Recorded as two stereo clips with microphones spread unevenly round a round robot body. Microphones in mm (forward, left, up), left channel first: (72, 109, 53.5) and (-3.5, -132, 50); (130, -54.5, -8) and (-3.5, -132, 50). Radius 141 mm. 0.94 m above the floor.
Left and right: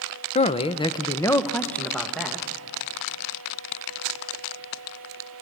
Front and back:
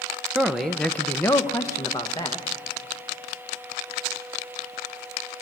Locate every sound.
0.3 s a man speaking: 75° left, 0.7 m; by 2.5 s 20° right, 1.3 m